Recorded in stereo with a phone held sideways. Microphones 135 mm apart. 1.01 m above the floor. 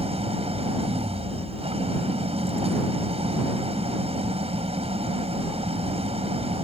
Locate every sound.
0.0 s an engine running: 50° right (ahead or behind)